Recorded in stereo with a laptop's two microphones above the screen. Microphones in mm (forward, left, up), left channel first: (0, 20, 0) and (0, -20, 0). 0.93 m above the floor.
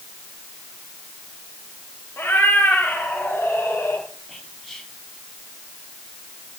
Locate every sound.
2.2 s a cat meowing: 65° left (ahead or behind), 7 m; by 4.0 s 70° left (ahead or behind), 7 m
4.3 s whispering: 5° left (ahead or behind), 7.5 m